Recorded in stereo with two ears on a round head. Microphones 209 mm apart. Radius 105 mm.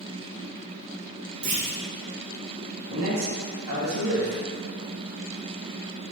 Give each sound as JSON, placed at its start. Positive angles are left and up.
{"t": 1.4, "sound": "a clunk", "side_deg": -45, "distance_m": 2.0}
{"t": 2.9, "sound": "a man speaking", "side_deg": -70, "distance_m": 2.5}